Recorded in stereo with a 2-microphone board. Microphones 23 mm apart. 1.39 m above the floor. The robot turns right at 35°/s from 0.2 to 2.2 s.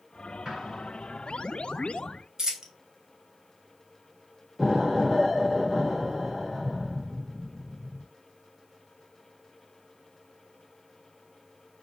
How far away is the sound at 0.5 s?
About 1.5 m.